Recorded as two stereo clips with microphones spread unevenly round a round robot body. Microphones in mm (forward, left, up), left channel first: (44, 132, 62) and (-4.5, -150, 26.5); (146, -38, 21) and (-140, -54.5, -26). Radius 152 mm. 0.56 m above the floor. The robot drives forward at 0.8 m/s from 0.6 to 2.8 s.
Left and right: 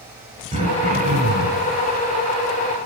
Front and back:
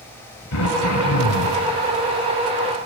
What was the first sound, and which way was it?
Throat clearing, 30° right.